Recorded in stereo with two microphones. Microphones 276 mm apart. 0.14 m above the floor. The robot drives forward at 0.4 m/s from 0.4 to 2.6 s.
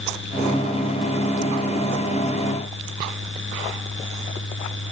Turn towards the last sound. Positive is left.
No sound to turn to.